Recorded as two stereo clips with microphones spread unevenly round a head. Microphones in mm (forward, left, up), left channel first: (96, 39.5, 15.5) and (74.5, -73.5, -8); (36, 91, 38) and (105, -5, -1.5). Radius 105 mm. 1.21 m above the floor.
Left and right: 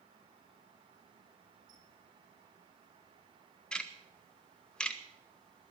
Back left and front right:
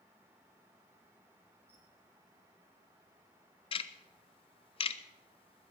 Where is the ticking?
175° left, 0.7 m.